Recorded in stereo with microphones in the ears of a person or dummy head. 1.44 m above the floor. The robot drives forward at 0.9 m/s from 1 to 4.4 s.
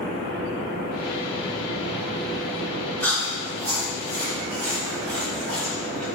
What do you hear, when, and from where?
3.0 s chewing: 10° left (ahead or behind), 3.5 m